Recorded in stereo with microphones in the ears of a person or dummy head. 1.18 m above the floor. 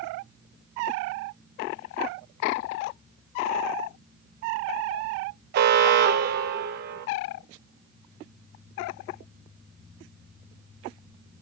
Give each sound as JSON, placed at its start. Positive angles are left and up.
{"t": 5.5, "sound": "an alarm", "side_deg": -50, "distance_m": 0.6}